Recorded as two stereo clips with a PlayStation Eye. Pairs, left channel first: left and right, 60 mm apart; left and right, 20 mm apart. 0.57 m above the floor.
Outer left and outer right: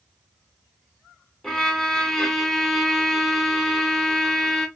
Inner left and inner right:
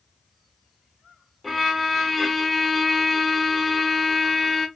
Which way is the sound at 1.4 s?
10° left (ahead or behind).